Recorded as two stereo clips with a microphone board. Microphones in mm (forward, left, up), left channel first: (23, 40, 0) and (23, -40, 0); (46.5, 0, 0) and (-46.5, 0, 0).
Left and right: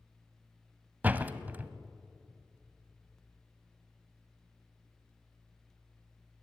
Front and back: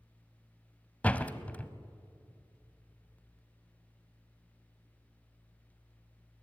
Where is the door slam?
55° right, 0.9 m.